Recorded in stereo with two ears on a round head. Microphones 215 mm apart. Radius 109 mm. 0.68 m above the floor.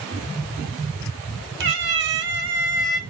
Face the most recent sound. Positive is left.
turn(degrees=-50)  # may be behind; listen again after turning